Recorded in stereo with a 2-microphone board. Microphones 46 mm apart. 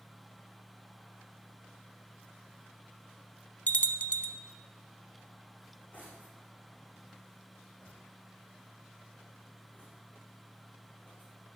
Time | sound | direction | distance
3.7 | a bell | 35° left (ahead or behind) | 0.6 m
5.6 | cutlery clinking | 35° left (ahead or behind) | 8.5 m